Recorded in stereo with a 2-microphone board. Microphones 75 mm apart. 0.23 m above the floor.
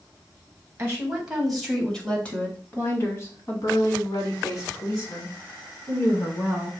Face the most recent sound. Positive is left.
turn(degrees=50)  # may be behind; listen again after turning